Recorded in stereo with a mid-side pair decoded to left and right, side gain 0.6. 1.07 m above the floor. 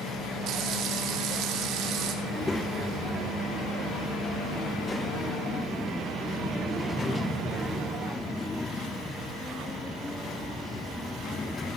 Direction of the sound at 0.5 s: 60° right.